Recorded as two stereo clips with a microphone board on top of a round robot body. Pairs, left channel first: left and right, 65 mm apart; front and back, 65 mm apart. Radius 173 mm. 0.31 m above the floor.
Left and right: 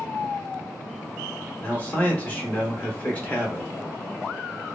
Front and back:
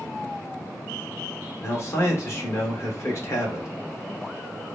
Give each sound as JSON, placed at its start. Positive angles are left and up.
{"t": 1.6, "sound": "a man speaking", "azimuth_deg": 25, "distance_m": 1.6}